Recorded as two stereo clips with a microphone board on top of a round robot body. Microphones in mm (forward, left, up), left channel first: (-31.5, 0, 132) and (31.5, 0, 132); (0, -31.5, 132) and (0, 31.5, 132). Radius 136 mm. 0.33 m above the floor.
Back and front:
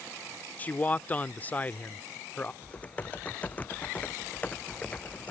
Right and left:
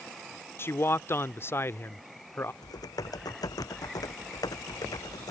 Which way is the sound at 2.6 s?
115° right.